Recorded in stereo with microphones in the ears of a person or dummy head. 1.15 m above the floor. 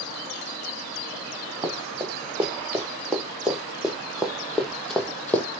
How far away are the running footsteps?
About 4 m.